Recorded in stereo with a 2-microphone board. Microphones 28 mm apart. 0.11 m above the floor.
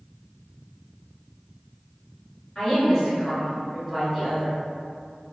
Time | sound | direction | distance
2.5 | a woman speaking | 25° left (ahead or behind) | 1.8 m